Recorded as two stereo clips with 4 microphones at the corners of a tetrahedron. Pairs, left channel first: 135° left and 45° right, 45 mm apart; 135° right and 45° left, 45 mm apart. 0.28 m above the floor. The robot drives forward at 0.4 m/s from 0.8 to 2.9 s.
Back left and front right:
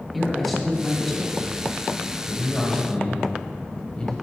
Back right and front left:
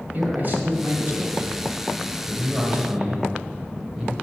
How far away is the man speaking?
About 1.6 m.